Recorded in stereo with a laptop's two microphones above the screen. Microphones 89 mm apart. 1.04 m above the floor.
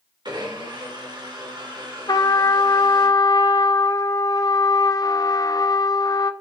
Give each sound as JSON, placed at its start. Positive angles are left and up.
{"t": 0.2, "sound": "a blender", "side_deg": -60, "distance_m": 3.5}
{"t": 2.1, "sound": "a trumpet", "side_deg": 45, "distance_m": 0.5}